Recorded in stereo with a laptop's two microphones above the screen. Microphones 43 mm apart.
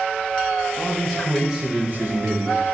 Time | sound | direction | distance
0.8 | a man speaking | 15° left (ahead or behind) | 1.0 m